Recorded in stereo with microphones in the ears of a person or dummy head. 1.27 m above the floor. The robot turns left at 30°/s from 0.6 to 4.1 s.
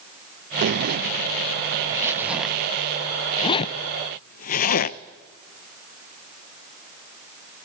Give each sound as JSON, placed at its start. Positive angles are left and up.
{"t": 0.6, "sound": "a zipper", "side_deg": -55, "distance_m": 0.6}